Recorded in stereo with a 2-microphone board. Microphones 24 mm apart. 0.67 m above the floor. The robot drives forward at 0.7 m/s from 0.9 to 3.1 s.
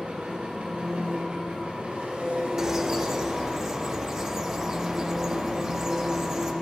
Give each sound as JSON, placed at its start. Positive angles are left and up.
{"t": 0.0, "sound": "an engine running", "side_deg": -75, "distance_m": 2.5}
{"t": 2.6, "sound": "a bird", "side_deg": -20, "distance_m": 0.6}